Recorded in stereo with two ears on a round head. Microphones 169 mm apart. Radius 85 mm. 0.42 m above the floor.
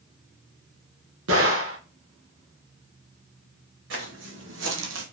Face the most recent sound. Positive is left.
turn(degrees=-70)  # may be behind; listen again after turning